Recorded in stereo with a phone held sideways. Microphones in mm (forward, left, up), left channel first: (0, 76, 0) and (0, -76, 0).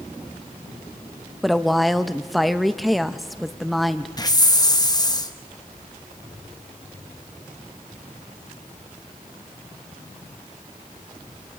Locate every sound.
1.4 s a woman speaking: centre (ahead or behind), 0.7 m
4.2 s a hiss: 25° left (ahead or behind), 0.9 m